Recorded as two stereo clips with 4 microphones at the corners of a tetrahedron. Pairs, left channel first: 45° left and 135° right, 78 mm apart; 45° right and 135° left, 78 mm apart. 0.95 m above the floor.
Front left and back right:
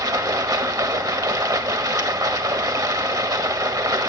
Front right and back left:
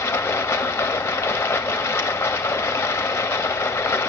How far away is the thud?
No thud in this recording.